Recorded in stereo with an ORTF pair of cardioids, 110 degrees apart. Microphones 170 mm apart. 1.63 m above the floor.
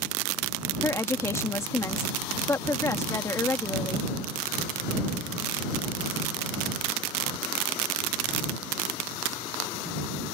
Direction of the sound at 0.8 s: 15° left.